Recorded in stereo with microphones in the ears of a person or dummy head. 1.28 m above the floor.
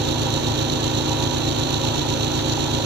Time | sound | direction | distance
0.0 | an engine running | 60° right (ahead or behind) | ?